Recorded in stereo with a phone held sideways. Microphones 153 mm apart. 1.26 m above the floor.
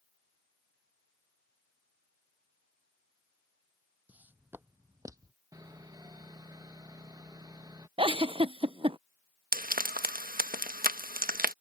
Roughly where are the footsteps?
Centre.